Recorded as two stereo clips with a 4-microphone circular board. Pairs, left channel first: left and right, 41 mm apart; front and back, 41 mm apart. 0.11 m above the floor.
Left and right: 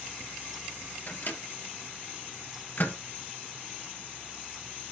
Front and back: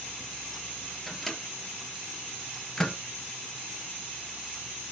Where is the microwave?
70° left, 2 m.